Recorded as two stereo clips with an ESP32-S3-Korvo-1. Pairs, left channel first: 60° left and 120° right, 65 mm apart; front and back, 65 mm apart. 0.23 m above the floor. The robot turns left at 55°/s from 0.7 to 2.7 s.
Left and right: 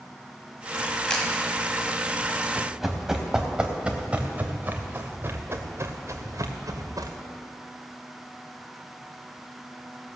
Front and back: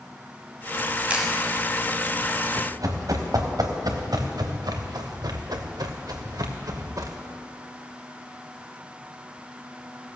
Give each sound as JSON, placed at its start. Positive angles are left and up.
{"t": 1.1, "sound": "a camera shutter", "azimuth_deg": 130, "distance_m": 1.7}
{"t": 2.5, "sound": "running footsteps", "azimuth_deg": 155, "distance_m": 3.0}